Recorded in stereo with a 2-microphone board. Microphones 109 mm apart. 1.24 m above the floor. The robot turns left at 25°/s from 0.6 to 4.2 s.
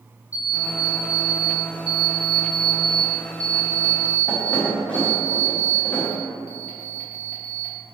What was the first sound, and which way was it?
An alarm clock, 10° right (ahead or behind).